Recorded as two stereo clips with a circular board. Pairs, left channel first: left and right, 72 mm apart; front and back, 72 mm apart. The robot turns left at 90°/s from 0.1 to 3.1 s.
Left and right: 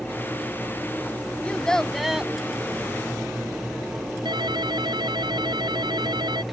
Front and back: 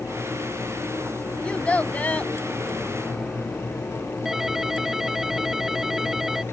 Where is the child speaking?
50° left; by 2.3 s 30° right.